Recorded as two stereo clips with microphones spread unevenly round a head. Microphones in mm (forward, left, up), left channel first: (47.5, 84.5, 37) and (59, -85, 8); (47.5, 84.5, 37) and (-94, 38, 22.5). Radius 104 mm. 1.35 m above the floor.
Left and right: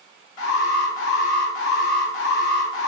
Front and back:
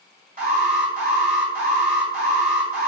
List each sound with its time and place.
0.4 s an alarm: 165° left, 2.5 m